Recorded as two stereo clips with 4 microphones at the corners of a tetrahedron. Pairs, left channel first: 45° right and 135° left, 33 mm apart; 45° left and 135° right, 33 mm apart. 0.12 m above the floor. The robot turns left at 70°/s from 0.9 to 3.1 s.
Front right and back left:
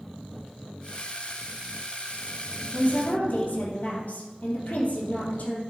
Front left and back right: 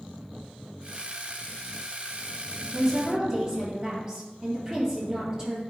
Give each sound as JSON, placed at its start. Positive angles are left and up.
{"t": 2.7, "sound": "a woman speaking", "azimuth_deg": -50, "distance_m": 2.5}